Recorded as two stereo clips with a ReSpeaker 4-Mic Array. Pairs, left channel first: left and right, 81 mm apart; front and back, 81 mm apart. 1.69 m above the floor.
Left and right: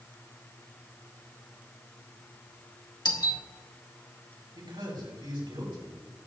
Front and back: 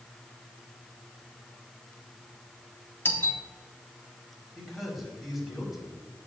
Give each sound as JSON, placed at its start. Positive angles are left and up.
{"t": 3.0, "sound": "a doorbell", "azimuth_deg": 65, "distance_m": 1.4}
{"t": 4.5, "sound": "a man speaking", "azimuth_deg": -90, "distance_m": 4.5}